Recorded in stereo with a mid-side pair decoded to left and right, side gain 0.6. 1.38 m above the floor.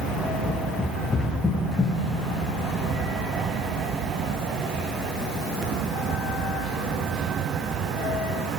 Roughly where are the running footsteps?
Ahead.